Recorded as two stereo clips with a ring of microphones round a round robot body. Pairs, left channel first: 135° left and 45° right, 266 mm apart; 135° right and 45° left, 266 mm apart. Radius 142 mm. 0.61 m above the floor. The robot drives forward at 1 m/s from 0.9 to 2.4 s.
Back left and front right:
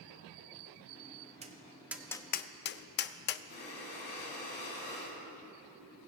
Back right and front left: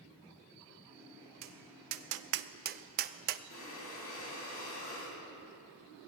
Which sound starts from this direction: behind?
Breathing, at 3.5 s.